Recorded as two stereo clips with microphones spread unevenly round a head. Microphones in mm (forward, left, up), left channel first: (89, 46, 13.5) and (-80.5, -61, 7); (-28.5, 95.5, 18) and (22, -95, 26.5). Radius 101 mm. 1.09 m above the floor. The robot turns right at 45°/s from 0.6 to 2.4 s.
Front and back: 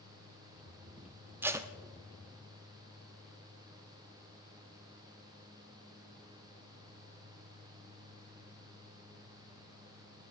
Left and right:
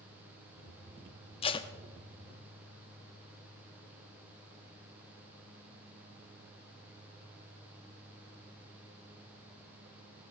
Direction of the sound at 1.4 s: 140° left.